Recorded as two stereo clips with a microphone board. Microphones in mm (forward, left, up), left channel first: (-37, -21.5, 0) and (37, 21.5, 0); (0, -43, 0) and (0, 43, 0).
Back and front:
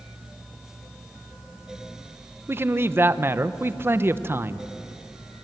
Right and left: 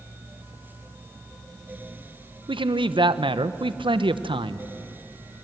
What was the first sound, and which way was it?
A man speaking, 90° left.